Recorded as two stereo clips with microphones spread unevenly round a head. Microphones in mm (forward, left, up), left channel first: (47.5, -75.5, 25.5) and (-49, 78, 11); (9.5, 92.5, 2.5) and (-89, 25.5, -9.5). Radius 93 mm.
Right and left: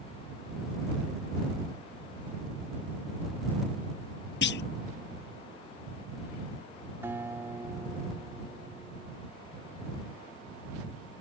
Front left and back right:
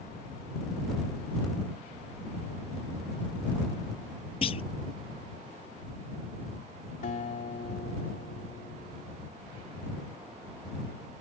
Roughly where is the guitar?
Ahead left.